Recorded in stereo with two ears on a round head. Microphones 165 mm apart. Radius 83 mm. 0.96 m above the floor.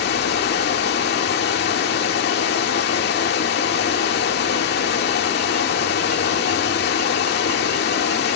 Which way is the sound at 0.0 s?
65° left (ahead or behind).